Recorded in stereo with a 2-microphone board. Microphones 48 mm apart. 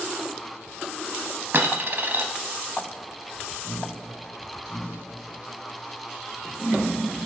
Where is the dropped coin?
45° right (ahead or behind), 0.8 m.